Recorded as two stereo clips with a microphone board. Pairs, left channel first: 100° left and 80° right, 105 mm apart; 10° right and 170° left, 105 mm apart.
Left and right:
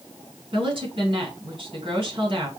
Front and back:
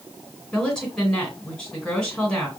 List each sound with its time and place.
0.5 s a woman speaking: 95° right, 2.5 m